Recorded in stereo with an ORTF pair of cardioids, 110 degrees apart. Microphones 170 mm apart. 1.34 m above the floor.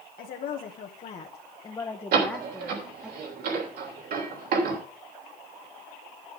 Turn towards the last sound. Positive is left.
turn(degrees=-60)